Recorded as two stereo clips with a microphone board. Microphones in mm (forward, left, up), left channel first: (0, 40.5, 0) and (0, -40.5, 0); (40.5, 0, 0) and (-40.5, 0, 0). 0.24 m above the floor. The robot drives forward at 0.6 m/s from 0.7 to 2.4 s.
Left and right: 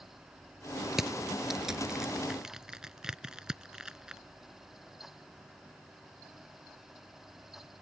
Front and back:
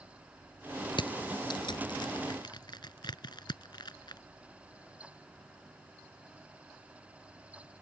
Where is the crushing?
5° right; by 4.2 s 10° right.